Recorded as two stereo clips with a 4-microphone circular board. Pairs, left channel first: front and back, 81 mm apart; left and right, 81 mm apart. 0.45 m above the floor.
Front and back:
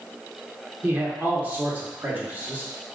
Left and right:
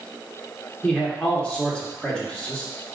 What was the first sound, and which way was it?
A man speaking, 155° left.